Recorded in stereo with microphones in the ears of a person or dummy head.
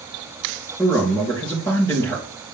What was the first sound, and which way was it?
A man speaking, 15° left (ahead or behind).